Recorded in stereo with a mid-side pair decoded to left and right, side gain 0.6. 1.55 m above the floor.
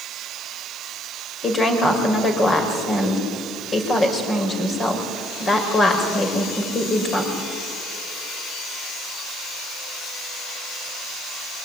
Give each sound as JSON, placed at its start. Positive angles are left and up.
{"t": 1.4, "sound": "a woman speaking", "azimuth_deg": 30, "distance_m": 6.0}